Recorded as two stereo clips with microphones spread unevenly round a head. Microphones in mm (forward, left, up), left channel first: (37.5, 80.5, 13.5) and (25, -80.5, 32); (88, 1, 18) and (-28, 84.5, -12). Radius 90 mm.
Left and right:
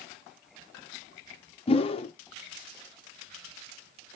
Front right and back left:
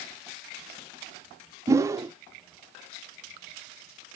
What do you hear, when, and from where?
1.7 s a whoosh: 75° left, 0.6 m